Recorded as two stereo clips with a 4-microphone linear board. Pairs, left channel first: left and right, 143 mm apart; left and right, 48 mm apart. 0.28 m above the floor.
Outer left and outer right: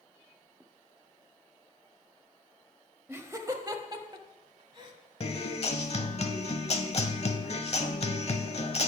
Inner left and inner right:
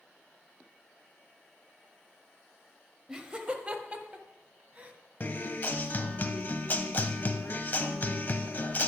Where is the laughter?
15° right (ahead or behind), 0.9 m; by 4.9 s 35° right (ahead or behind), 1.5 m.